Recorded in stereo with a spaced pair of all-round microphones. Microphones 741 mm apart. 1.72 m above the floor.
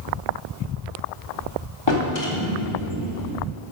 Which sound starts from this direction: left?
A drawer, at 1.9 s.